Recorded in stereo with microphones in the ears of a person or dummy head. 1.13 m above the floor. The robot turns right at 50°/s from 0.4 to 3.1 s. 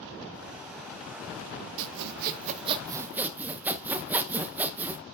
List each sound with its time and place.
1.8 s sawing: 75° right, 0.6 m; by 5.0 s 10° right, 0.6 m